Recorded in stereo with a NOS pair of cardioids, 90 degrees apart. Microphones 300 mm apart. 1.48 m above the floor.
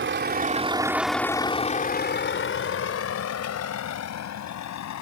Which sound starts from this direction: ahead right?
A vehicle, at 0.0 s.